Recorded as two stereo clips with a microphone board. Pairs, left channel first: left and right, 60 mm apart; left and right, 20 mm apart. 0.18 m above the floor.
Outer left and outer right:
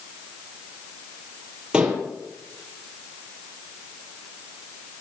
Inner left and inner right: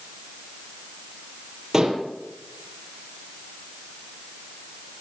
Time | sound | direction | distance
1.7 | dishes clattering | 15° right (ahead or behind) | 3.5 m